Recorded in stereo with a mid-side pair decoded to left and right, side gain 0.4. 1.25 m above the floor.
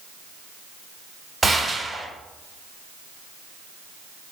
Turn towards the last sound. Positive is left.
turn(degrees=-25)